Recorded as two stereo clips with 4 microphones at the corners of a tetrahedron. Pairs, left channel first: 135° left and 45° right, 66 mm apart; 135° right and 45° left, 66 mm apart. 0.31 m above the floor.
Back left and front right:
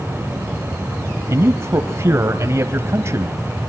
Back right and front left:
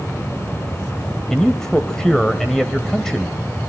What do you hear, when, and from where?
1.3 s a man speaking: 55° right, 1.2 m